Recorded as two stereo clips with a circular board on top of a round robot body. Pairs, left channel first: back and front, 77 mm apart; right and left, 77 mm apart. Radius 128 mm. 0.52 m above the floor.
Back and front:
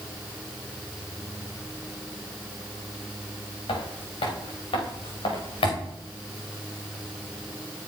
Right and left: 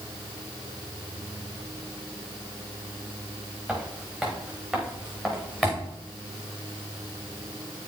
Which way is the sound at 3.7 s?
Straight behind.